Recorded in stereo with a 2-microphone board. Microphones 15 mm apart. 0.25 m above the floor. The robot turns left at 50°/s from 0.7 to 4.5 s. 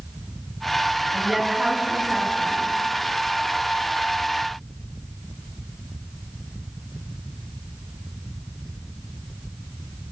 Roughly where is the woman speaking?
Ahead right.